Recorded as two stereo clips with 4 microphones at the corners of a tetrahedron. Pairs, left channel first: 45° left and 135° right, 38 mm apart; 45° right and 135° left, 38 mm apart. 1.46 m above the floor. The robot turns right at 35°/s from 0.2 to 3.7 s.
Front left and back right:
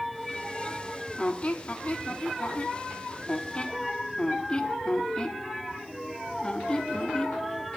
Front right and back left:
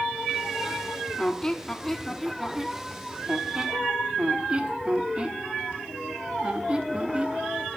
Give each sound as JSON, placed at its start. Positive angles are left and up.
{"t": 1.2, "sound": "a squeak", "azimuth_deg": 5, "distance_m": 1.1}